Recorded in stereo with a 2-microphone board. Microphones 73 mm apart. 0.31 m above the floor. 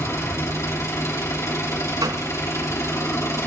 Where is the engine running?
40° left (ahead or behind), 3 m.